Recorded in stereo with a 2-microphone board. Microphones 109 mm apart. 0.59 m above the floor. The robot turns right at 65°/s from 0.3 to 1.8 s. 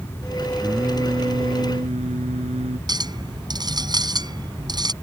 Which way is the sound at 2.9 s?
40° right (ahead or behind).